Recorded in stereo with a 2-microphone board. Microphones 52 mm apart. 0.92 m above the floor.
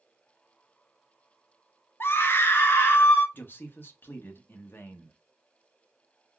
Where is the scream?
45° left (ahead or behind), 0.6 m.